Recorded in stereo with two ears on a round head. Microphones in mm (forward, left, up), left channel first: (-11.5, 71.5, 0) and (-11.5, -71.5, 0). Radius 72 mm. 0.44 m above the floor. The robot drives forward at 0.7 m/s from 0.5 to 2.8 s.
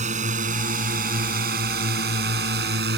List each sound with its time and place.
0.0 s a drone: 50° right (ahead or behind); by 3.0 s 75° right (ahead or behind)